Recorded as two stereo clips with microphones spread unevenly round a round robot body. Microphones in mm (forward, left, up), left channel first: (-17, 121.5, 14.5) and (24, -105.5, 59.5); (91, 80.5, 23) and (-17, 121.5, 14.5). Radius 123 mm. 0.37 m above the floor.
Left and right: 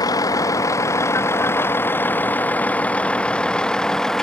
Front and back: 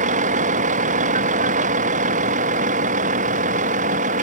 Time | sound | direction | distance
0.0 | a vehicle | 175° left | ?